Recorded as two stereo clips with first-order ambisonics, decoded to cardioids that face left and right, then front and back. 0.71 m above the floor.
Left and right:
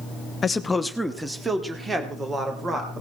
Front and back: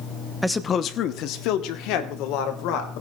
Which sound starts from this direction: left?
A man speaking, at 0.4 s.